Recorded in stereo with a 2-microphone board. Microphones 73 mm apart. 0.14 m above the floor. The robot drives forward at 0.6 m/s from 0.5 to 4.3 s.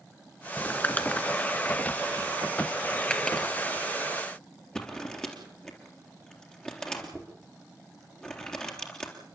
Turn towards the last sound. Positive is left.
turn(degrees=10)  # may be behind; listen again after turning